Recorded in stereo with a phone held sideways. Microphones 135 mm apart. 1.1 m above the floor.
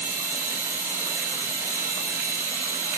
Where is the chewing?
No chewing in this recording.